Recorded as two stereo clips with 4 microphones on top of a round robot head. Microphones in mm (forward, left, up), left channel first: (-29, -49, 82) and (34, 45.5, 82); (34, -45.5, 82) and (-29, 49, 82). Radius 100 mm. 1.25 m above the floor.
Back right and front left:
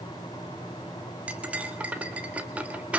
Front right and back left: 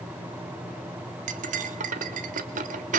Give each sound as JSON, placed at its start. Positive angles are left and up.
{"t": 1.3, "sound": "cutlery clinking", "azimuth_deg": 135, "distance_m": 1.3}